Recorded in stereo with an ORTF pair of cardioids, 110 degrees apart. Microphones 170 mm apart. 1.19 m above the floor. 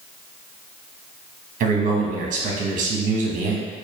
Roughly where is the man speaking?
Ahead right.